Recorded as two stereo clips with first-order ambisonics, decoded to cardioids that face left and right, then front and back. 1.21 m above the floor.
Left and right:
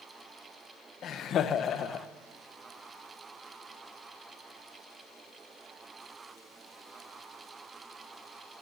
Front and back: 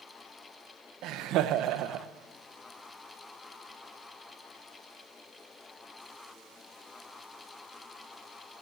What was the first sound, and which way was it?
Laughter, 145° left.